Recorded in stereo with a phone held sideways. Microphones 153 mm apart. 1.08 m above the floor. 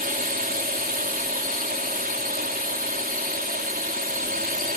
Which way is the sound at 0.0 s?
70° right (ahead or behind).